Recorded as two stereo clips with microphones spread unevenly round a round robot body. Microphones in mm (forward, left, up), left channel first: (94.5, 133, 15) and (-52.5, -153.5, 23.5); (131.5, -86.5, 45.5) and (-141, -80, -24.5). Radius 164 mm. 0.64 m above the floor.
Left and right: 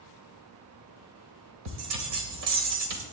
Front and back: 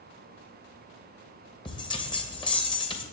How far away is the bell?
About 2.5 m.